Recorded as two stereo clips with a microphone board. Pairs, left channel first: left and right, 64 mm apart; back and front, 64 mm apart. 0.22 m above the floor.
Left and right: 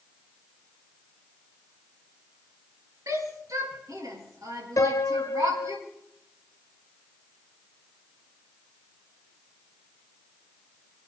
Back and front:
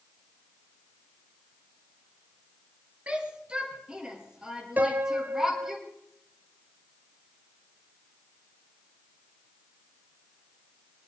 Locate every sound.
3.1 s a shout: 65° right, 4.5 m; by 5.8 s 80° right, 6 m
4.8 s a piano: 60° left, 0.9 m